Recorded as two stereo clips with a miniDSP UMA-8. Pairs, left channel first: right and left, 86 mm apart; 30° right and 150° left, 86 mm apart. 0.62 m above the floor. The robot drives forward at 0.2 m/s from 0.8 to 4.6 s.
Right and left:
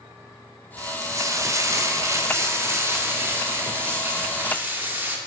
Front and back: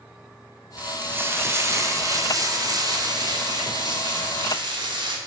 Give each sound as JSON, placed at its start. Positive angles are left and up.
{"t": 0.8, "sound": "frying", "azimuth_deg": 90, "distance_m": 0.6}